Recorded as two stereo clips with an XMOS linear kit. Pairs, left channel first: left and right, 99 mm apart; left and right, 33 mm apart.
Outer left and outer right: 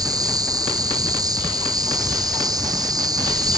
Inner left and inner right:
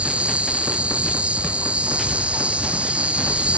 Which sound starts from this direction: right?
An insect, at 0.0 s.